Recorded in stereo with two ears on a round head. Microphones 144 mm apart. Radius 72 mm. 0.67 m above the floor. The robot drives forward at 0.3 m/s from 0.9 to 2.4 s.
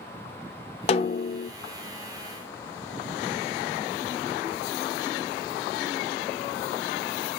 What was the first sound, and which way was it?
A snare drum, 35° left (ahead or behind).